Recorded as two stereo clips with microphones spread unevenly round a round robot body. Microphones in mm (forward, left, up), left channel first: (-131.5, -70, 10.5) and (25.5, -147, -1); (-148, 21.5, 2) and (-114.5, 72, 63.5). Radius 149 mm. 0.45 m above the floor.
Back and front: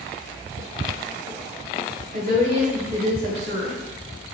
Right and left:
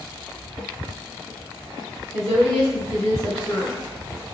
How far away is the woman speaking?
About 1.9 m.